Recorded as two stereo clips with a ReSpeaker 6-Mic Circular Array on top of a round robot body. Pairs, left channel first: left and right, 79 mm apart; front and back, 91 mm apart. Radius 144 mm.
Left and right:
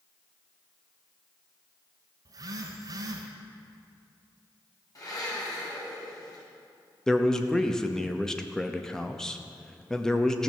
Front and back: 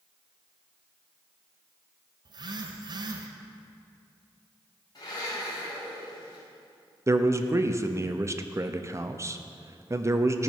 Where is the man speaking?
165° left, 0.9 m.